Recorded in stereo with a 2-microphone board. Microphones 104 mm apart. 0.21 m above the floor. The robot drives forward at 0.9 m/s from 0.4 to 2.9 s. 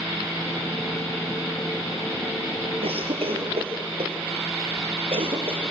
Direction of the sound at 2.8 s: 65° right (ahead or behind).